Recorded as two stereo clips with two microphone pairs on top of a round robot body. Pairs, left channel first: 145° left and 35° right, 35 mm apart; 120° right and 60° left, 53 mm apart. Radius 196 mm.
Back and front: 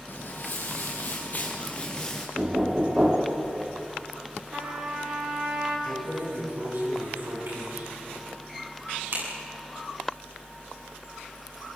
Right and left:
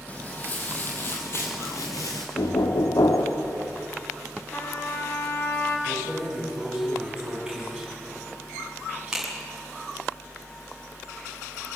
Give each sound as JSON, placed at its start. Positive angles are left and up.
{"t": 0.1, "sound": "footsteps", "azimuth_deg": 180, "distance_m": 2.0}
{"t": 2.4, "sound": "knocking", "azimuth_deg": -100, "distance_m": 1.8}
{"t": 4.5, "sound": "a trumpet", "azimuth_deg": -70, "distance_m": 3.5}
{"t": 5.9, "sound": "keys jangling", "azimuth_deg": -20, "distance_m": 8.0}